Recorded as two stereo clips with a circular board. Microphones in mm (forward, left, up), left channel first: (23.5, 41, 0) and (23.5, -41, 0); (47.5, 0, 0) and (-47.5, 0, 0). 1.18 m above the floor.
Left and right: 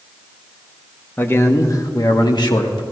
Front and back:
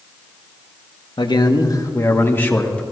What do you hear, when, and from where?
1.2 s a man speaking: 25° left, 1.1 m; by 2.8 s 75° left, 1.7 m